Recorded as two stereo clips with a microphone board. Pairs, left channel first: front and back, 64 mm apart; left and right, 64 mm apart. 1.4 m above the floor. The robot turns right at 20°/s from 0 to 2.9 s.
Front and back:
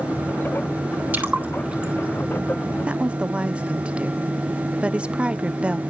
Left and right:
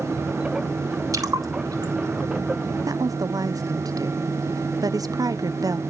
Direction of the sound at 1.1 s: 120° right.